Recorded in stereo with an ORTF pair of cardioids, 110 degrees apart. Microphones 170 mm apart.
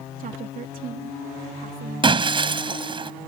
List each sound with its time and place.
0.2 s a woman speaking: 55° right
2.0 s breaking glass: 30° right